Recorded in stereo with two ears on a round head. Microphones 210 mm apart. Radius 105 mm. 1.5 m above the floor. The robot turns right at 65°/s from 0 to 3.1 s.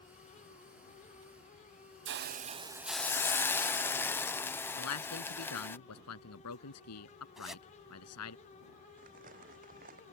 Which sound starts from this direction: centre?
A zipper, at 7.4 s.